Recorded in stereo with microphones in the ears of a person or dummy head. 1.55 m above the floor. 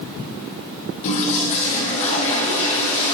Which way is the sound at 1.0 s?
40° left (ahead or behind).